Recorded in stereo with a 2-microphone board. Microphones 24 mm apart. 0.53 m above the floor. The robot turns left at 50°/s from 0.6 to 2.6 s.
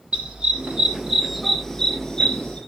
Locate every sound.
0.1 s a dog barking: 45° right (ahead or behind), 6.5 m; by 2.6 s 55° left (ahead or behind), 6.5 m